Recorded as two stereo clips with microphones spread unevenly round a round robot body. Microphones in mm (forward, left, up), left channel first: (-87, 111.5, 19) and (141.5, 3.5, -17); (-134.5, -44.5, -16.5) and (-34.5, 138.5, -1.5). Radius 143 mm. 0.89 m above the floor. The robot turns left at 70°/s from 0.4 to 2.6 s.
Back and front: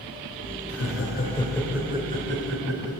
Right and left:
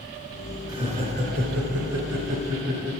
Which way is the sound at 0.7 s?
135° left.